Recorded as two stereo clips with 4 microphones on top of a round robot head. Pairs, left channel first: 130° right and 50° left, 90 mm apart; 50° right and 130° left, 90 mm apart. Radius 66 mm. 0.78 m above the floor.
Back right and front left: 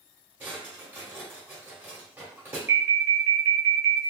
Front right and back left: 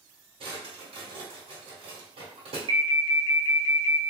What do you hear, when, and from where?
0.4 s a drawer: 120° left, 1.4 m
2.7 s an alarm: 110° left, 0.9 m